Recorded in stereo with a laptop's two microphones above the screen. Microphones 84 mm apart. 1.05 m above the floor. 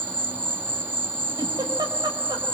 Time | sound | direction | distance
0.0 | an insect | 25° right (ahead or behind) | 1.0 m
1.4 | a giggle | 60° right (ahead or behind) | 4 m